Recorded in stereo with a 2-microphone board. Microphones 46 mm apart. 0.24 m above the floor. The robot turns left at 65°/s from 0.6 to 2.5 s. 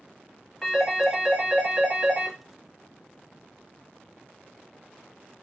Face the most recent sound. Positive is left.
turn(degrees=-125)